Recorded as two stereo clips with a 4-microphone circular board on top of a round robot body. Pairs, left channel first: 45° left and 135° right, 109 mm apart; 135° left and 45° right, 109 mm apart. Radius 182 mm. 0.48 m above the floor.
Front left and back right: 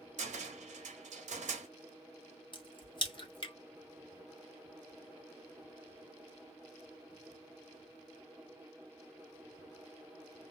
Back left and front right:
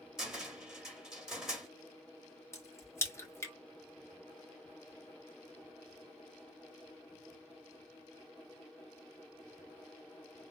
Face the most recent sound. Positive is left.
turn(degrees=75)